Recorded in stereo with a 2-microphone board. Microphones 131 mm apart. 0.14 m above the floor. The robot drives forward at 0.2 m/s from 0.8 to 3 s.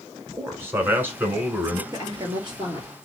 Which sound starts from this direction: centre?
A man speaking, at 0.3 s.